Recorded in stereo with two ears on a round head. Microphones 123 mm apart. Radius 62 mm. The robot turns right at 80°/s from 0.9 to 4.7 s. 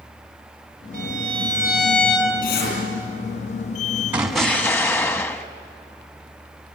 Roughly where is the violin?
Right.